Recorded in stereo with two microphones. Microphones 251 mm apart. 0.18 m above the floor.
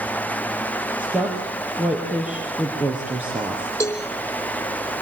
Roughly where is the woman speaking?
Centre.